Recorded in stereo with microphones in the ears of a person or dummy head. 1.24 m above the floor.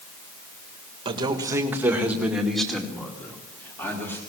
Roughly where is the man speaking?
Right.